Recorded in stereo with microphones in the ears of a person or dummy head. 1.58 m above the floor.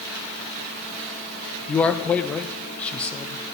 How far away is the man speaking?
About 0.7 m.